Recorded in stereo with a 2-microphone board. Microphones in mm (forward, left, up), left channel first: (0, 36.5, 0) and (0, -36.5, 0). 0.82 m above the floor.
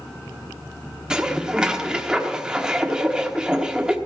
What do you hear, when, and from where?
1.1 s dishes clattering: 10° right (ahead or behind), 1.2 m